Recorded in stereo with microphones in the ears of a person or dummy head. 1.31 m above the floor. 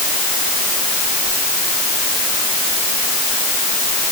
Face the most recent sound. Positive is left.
No sound to turn to.